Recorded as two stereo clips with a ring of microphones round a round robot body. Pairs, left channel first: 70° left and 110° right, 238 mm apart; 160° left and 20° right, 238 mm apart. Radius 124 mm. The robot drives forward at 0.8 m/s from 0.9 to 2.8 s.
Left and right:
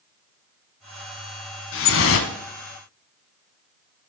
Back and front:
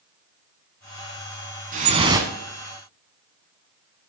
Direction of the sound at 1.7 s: 35° left.